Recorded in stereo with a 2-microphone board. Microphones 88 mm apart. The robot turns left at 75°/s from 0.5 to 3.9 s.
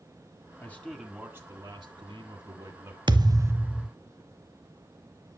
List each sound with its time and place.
0.6 s a man speaking: 30° left, 1.9 m; by 3.0 s 150° right, 1.9 m
3.1 s a thud: 115° right, 0.6 m; by 3.9 s straight behind, 0.6 m